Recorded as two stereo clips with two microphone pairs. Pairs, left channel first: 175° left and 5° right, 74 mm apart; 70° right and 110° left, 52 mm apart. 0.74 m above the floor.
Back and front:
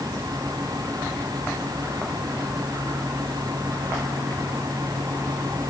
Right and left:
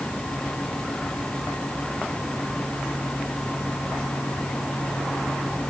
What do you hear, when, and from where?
Only background noise.